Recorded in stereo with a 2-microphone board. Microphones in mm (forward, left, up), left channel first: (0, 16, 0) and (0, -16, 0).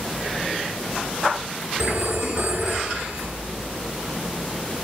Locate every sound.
1.8 s a phone ringing: 75° right (ahead or behind), 2.5 m